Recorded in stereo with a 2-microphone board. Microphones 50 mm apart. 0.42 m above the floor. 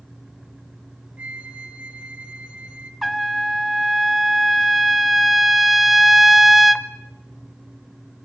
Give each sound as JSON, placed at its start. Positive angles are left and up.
{"t": 1.2, "sound": "a flute", "side_deg": -30, "distance_m": 1.4}
{"t": 3.0, "sound": "a trumpet", "side_deg": -5, "distance_m": 0.6}